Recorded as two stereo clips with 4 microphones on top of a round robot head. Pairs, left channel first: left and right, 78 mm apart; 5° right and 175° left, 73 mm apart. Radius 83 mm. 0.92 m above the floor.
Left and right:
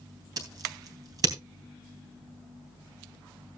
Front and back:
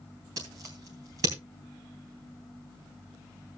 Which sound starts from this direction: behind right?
Scissors, at 0.4 s.